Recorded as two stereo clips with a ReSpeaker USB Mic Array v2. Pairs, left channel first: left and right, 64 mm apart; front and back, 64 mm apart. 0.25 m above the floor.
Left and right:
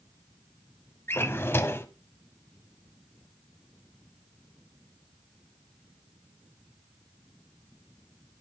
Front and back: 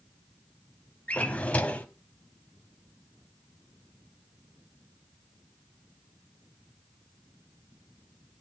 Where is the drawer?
60° left, 0.8 m.